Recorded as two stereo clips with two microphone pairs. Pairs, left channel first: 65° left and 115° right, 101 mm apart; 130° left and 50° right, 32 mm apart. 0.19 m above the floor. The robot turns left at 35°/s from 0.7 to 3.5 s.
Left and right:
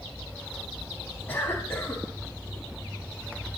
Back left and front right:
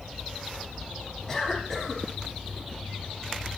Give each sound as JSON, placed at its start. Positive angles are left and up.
{"t": 1.3, "sound": "a cough", "azimuth_deg": 100, "distance_m": 1.2}